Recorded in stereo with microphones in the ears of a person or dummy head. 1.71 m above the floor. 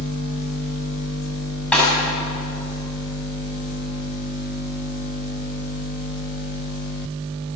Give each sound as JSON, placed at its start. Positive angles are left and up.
{"t": 1.7, "sound": "a snare drum", "side_deg": 5, "distance_m": 8.5}